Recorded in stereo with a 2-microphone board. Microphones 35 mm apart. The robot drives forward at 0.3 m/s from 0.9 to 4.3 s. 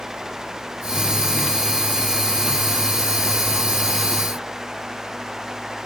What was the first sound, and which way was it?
Only background noise.